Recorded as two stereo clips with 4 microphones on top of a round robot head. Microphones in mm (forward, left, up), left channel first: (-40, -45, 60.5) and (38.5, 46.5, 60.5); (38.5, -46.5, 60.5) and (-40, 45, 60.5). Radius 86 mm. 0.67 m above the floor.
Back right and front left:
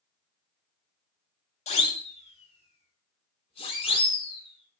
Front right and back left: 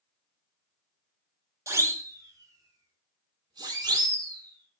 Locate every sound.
1.7 s a siren: 165° right, 4 m; by 4.8 s 175° right, 7.5 m